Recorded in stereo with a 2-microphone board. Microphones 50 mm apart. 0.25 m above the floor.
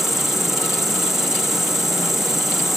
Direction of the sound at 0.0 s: 5° right (ahead or behind).